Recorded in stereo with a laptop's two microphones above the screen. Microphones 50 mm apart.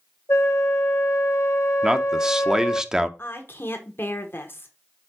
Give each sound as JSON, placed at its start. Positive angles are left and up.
{"t": 0.3, "sound": "a flute", "side_deg": 70, "distance_m": 1.1}
{"t": 1.8, "sound": "a man speaking", "side_deg": -15, "distance_m": 0.6}
{"t": 3.2, "sound": "a woman speaking", "side_deg": 45, "distance_m": 1.1}